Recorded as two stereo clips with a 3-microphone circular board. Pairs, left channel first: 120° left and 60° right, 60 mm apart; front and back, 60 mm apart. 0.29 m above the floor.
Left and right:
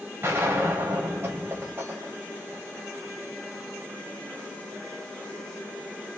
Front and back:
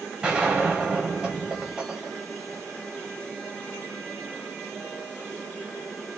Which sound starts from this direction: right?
A gunshot, at 0.2 s.